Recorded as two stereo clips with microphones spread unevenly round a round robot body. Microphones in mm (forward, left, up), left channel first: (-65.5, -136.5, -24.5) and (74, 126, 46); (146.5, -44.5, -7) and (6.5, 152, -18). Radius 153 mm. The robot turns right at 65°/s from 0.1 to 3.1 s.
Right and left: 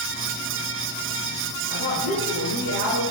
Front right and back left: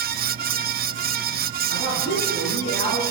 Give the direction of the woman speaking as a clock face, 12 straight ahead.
2 o'clock.